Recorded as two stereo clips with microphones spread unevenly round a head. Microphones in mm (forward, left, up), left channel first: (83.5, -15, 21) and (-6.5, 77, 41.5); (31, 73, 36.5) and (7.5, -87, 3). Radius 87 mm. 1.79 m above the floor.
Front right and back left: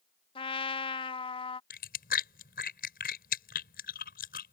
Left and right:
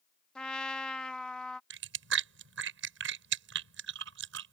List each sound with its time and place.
0.3 s a trumpet: 5° left
1.7 s chewing: 85° right